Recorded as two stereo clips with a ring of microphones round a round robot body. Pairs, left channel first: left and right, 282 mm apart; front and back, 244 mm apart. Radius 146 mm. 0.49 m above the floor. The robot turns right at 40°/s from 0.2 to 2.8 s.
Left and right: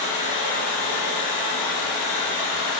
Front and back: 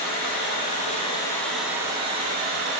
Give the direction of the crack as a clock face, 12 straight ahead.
No crack in this recording.